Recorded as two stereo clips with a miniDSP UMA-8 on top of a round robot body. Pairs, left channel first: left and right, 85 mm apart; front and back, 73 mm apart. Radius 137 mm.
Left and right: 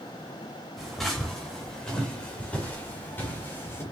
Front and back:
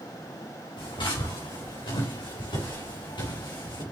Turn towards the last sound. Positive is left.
turn(degrees=25)